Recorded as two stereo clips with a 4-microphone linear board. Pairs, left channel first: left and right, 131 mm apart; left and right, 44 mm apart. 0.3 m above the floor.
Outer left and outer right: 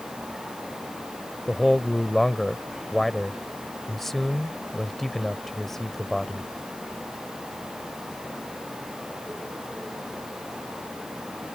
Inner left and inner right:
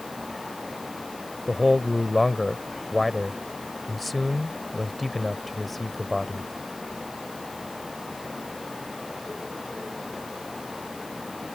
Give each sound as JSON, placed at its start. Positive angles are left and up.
{"t": 1.5, "sound": "a man speaking", "side_deg": 0}